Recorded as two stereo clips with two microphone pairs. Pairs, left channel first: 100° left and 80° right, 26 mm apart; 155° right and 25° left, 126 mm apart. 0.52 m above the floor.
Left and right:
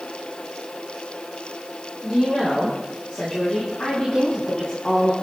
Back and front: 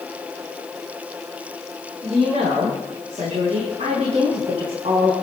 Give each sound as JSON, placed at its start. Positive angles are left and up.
{"t": 2.0, "sound": "a woman speaking", "azimuth_deg": 45, "distance_m": 6.0}